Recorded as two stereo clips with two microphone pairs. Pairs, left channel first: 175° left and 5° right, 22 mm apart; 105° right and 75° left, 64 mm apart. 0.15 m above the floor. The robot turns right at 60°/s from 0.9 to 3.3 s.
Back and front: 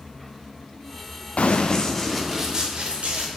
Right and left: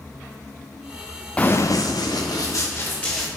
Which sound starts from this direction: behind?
Running footsteps, at 1.4 s.